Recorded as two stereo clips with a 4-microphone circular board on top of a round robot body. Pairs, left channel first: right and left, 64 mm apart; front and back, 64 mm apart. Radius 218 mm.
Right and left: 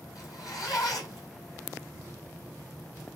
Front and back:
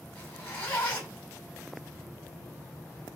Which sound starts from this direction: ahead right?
A zipper, at 0.1 s.